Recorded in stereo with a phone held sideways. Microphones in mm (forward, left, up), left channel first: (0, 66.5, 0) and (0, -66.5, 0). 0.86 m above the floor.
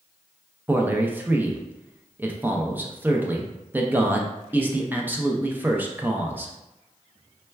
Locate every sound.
0.7 s a man speaking: 15° right (ahead or behind), 0.5 m